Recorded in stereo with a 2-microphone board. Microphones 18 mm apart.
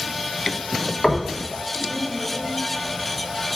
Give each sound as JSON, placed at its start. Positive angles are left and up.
{"t": 1.0, "sound": "knocking", "side_deg": 35, "distance_m": 1.1}